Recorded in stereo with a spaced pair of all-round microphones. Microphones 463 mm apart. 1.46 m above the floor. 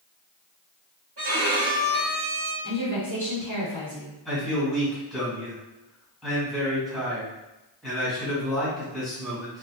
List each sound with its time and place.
1.2 s a violin: 50° right (ahead or behind), 1.3 m
2.6 s a woman speaking: 35° right (ahead or behind), 1.0 m
4.2 s a man speaking: centre (ahead or behind), 1.6 m